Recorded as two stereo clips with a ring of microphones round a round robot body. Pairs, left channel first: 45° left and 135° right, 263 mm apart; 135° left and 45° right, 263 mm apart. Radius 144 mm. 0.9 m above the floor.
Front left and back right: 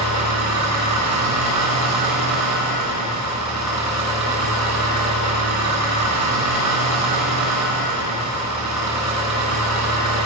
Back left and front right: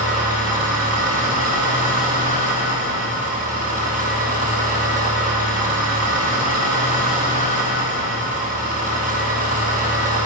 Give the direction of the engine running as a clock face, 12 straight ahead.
4 o'clock.